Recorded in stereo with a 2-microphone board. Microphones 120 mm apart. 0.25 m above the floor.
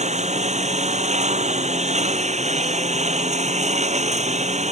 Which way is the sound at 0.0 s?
70° right (ahead or behind).